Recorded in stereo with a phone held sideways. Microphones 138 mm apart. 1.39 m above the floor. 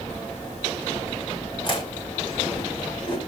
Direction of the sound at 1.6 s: 40° left (ahead or behind).